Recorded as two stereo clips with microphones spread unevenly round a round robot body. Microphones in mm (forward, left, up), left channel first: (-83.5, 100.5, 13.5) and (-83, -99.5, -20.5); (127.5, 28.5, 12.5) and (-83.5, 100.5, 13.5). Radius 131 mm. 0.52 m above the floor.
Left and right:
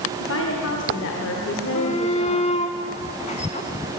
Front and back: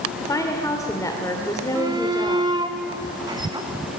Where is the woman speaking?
55° left, 1.8 m.